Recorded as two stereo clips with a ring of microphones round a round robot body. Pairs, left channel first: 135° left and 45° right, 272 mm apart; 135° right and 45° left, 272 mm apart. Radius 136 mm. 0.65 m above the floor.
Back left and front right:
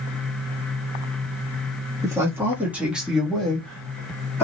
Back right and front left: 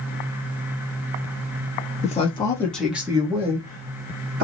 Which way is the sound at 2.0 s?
110° right.